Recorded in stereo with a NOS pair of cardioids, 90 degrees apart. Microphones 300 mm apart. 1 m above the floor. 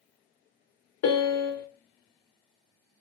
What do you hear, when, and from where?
1.0 s a piano: 55° left, 0.7 m